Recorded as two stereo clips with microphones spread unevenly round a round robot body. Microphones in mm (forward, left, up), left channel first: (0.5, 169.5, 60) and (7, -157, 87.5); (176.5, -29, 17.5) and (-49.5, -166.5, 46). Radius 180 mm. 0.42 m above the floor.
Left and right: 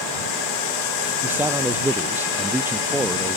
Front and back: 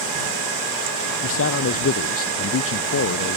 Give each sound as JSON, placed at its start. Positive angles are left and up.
{"t": 1.2, "sound": "a man speaking", "azimuth_deg": -5}